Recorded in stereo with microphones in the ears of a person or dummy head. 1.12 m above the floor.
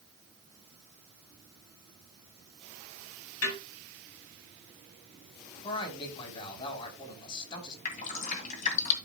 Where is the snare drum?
90° left, 5.5 m.